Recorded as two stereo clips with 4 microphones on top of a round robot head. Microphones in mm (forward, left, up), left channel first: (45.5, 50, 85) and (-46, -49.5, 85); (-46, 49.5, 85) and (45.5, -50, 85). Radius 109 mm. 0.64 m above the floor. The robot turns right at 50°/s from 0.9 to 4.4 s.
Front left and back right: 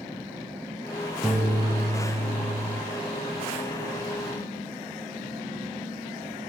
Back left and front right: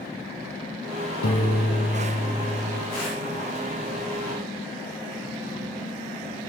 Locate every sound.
1.2 s a piano: 140° left, 8.5 m; by 2.8 s 145° right, 8.5 m